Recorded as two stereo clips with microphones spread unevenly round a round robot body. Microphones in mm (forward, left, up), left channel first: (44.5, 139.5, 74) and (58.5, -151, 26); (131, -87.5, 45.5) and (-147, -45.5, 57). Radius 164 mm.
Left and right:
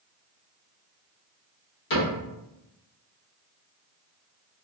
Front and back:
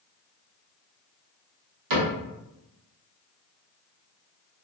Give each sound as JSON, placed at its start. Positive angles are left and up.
{"t": 1.9, "sound": "a cupboard door", "azimuth_deg": 150, "distance_m": 1.2}